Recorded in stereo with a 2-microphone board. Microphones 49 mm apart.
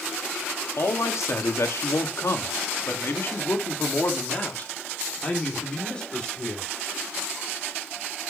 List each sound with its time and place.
0.8 s a man speaking: 70° left (ahead or behind), 1.9 m; by 6.7 s 15° left (ahead or behind), 3 m